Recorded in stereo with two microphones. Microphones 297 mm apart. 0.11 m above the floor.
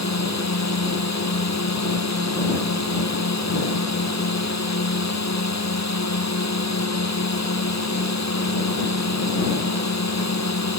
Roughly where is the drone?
Left.